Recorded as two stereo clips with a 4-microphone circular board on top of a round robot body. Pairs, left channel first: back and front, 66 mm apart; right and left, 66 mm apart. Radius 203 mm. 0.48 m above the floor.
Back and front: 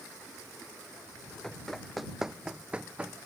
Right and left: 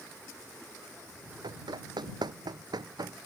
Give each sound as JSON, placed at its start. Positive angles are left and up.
{"t": 1.4, "sound": "running footsteps", "azimuth_deg": 95}